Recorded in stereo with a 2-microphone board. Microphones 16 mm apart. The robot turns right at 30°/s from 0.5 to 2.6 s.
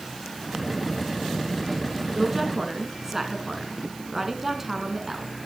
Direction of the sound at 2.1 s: 5° right (ahead or behind).